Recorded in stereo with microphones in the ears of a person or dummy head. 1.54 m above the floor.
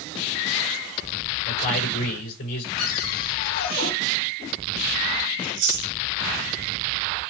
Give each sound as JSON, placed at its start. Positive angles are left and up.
{"t": 1.4, "sound": "a man speaking", "side_deg": 50, "distance_m": 6.5}
{"t": 2.8, "sound": "a cupboard door", "side_deg": 50, "distance_m": 4.5}
{"t": 5.4, "sound": "chewing", "side_deg": -60, "distance_m": 3.0}